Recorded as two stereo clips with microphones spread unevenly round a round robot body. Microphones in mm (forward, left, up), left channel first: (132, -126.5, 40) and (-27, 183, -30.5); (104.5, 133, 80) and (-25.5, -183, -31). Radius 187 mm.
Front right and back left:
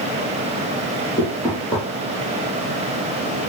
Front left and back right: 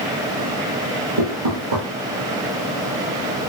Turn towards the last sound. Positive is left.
turn(degrees=-145)